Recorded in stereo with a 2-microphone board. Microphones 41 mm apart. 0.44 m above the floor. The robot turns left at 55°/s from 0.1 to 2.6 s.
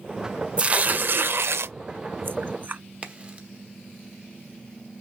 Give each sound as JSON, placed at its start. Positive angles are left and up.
{"t": 0.6, "sound": "tearing paper", "side_deg": -25, "distance_m": 0.5}
{"t": 3.0, "sound": "a crack", "side_deg": -25, "distance_m": 1.1}